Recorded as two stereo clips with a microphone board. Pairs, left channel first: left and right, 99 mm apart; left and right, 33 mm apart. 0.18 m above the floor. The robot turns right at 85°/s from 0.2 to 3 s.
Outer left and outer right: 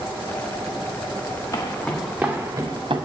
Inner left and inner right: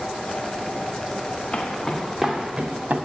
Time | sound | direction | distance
1.5 | footsteps | 35° left (ahead or behind) | 2 m